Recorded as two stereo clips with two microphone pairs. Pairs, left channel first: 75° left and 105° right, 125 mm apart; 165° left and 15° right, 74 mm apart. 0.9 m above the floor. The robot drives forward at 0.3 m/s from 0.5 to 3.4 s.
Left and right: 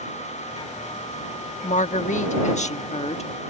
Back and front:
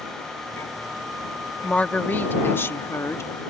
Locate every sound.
1.6 s a woman speaking: 90° left; by 3.3 s 110° left